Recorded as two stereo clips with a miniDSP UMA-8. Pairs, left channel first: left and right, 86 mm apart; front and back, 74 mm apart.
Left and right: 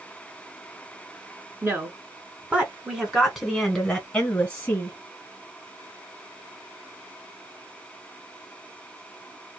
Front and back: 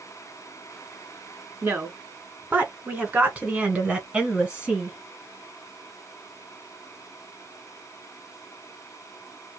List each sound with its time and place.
1.6 s a woman speaking: 130° right, 2.0 m; by 5.0 s 110° left, 1.7 m